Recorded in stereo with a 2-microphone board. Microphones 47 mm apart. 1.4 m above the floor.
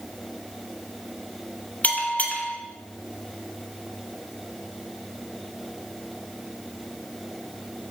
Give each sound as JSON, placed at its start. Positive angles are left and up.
{"t": 1.8, "sound": "a bell", "side_deg": 35, "distance_m": 0.9}